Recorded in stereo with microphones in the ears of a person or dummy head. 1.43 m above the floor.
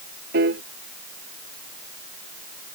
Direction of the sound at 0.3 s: 65° right (ahead or behind).